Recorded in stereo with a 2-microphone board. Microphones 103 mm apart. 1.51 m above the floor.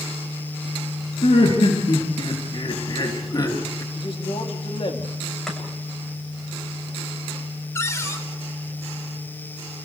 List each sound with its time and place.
1.2 s laughter: 75° left (ahead or behind), 3.5 m; by 3.8 s 35° left (ahead or behind), 2.5 m
3.9 s a man speaking: 60° left (ahead or behind), 3 m
5.5 s chopping: 5° left (ahead or behind), 7.5 m
7.8 s a cupboard door: 30° left (ahead or behind), 3 m